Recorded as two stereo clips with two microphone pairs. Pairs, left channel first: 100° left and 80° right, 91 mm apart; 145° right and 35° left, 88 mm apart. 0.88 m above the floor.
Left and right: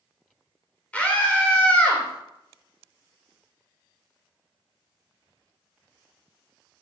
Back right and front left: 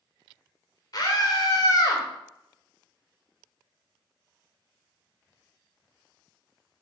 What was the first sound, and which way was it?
A scream, 175° left.